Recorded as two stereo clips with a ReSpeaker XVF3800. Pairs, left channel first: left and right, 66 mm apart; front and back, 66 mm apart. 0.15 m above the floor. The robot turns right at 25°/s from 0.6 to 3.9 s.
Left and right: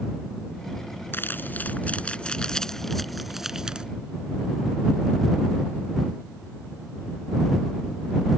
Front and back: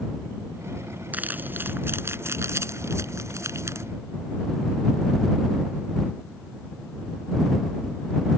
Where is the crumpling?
130° left; by 3.9 s 165° right.